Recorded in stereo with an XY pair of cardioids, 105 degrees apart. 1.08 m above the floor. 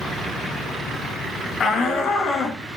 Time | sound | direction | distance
1.6 | a shout | 55° left | 1.7 m